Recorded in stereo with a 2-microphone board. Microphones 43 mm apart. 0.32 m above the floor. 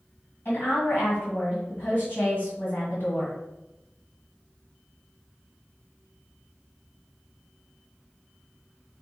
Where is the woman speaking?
55° left (ahead or behind), 1.9 m.